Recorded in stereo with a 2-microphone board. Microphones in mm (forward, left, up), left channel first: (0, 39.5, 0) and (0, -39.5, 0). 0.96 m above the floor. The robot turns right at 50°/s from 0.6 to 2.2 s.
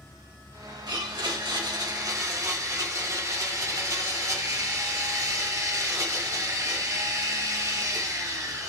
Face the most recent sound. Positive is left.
turn(degrees=-45)